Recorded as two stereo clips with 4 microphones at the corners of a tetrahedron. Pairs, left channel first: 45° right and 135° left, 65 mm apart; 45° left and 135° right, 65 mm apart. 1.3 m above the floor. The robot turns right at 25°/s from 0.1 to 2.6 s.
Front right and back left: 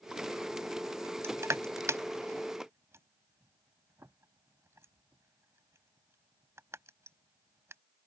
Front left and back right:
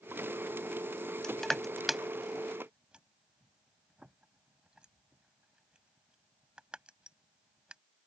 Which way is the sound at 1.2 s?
120° left.